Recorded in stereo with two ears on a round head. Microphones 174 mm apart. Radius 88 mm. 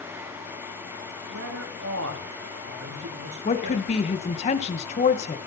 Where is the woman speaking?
35° left (ahead or behind), 2 m.